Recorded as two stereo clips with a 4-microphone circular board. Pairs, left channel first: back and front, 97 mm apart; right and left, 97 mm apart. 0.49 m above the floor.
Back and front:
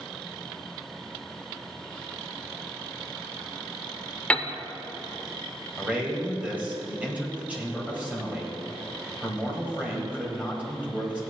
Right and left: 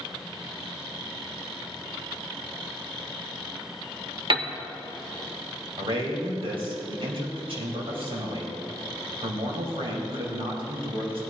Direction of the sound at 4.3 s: 105° left.